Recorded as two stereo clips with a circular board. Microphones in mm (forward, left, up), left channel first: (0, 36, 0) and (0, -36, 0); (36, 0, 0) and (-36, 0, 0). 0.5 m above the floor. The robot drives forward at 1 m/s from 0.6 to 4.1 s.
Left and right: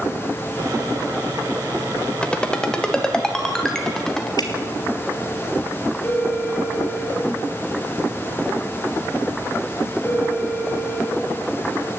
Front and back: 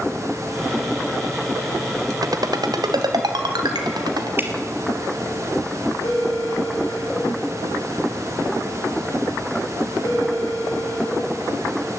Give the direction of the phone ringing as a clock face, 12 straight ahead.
11 o'clock.